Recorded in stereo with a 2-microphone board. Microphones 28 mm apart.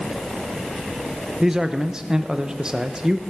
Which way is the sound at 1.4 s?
25° right (ahead or behind).